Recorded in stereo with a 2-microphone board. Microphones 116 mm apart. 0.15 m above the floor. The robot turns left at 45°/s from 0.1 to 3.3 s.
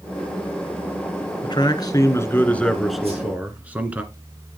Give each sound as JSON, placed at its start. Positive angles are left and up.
{"t": 1.4, "sound": "a man speaking", "azimuth_deg": 65, "distance_m": 1.8}
{"t": 3.0, "sound": "a whoosh", "side_deg": -60, "distance_m": 7.0}